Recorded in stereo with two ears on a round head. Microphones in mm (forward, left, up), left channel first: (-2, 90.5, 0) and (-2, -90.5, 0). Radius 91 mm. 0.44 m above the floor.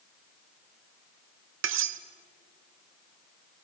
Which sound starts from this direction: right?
Cutlery clinking, at 1.6 s.